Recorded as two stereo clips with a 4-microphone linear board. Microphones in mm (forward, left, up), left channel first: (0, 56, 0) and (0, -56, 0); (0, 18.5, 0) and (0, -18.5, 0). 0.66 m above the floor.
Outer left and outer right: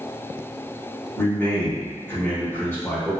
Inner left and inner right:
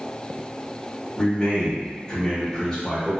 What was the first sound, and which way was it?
A man speaking, 20° left (ahead or behind).